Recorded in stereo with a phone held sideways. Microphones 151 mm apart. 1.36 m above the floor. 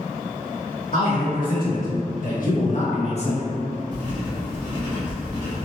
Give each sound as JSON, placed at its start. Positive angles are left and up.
{"t": 0.9, "sound": "a man speaking", "side_deg": 75, "distance_m": 1.8}
{"t": 3.9, "sound": "writing", "side_deg": 60, "distance_m": 1.6}